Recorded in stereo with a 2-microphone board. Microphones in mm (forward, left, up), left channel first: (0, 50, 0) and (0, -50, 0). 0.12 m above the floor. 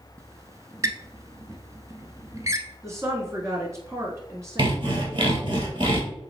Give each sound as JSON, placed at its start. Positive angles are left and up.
{"t": 0.2, "sound": "a squeak", "side_deg": -35, "distance_m": 0.6}
{"t": 2.8, "sound": "a woman speaking", "side_deg": -30, "distance_m": 1.3}
{"t": 4.6, "sound": "sawing", "side_deg": -55, "distance_m": 1.6}